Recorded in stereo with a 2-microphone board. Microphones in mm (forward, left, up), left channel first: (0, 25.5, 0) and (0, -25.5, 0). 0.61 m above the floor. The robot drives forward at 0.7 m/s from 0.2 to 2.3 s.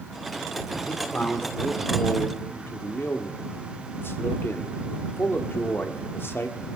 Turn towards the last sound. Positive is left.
turn(degrees=50)  # may be behind; listen again after turning